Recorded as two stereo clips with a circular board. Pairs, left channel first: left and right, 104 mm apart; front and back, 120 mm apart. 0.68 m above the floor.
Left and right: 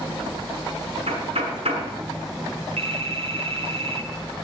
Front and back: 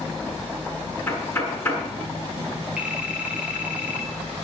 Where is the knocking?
70° right, 6.5 m.